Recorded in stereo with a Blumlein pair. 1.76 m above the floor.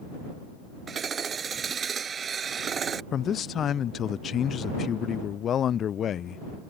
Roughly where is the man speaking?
Ahead left.